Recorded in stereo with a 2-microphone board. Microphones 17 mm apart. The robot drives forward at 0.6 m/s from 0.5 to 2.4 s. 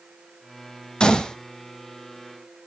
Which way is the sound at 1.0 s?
60° left (ahead or behind).